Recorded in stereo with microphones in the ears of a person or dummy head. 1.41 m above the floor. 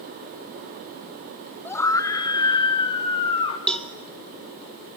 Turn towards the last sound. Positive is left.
turn(degrees=5)  # may be behind; listen again after turning